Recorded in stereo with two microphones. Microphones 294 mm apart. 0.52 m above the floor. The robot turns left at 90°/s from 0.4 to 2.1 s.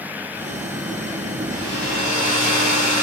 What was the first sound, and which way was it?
A hair dryer, 100° right.